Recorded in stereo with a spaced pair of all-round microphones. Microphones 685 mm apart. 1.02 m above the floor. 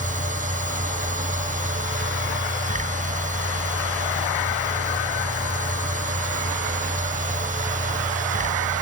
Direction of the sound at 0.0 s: 10° right (ahead or behind).